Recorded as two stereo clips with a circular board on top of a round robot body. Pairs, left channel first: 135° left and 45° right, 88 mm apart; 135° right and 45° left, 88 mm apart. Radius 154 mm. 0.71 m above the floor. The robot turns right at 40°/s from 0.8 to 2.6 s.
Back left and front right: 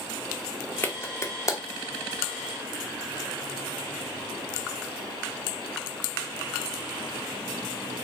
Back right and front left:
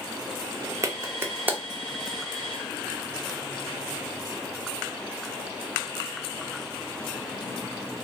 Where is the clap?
80° left, 0.9 m; by 1.6 s 110° left, 0.9 m.